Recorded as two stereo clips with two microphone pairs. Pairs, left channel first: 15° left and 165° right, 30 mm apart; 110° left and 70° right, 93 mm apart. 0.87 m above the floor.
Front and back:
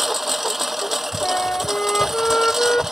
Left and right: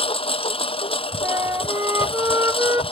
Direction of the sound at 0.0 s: 110° left.